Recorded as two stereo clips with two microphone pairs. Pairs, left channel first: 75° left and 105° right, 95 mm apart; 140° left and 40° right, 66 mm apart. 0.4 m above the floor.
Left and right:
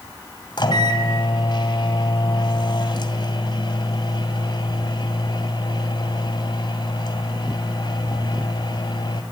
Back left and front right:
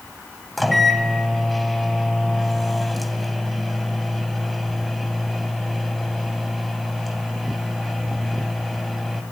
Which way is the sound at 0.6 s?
50° left.